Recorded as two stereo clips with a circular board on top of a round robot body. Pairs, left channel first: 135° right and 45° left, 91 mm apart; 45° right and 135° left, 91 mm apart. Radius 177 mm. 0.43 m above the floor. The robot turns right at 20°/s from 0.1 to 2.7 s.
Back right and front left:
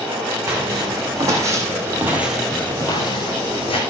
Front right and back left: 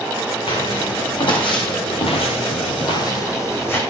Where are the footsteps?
20° right, 3.5 m; by 3.8 s 115° right, 2.5 m.